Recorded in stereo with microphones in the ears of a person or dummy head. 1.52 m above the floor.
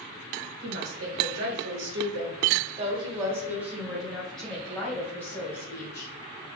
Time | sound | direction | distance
0.6 | a woman speaking | 75° right (ahead or behind) | 1.3 m